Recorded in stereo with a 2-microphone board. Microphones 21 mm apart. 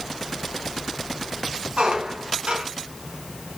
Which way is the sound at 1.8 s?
65° right (ahead or behind).